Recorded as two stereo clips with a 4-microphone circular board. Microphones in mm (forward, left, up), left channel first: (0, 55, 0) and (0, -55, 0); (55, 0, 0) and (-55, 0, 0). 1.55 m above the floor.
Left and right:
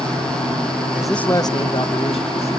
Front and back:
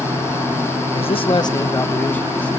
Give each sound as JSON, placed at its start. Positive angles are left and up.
{"t": 0.9, "sound": "a man speaking", "azimuth_deg": -15, "distance_m": 0.8}